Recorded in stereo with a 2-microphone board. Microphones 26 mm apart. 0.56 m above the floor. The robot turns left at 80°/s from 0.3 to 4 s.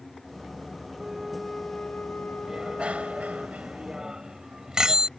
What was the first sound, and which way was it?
A flute, 160° right.